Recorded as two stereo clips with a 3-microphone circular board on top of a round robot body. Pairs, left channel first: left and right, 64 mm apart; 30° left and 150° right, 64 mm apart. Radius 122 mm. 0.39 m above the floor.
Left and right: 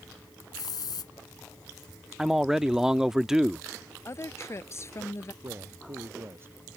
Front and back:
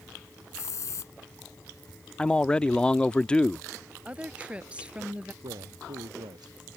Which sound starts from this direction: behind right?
A man speaking, at 5.4 s.